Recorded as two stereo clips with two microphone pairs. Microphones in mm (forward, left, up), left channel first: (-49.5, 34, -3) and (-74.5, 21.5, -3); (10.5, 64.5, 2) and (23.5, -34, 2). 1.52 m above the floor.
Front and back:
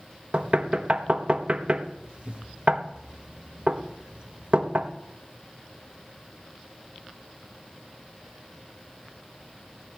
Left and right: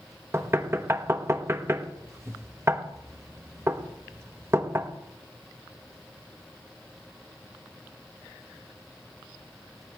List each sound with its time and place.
0.3 s knocking: 135° right, 0.9 m